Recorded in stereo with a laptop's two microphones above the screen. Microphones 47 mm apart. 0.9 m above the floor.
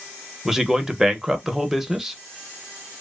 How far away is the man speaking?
About 0.7 m.